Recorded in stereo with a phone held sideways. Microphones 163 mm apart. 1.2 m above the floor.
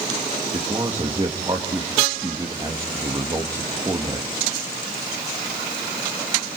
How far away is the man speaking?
About 1.9 m.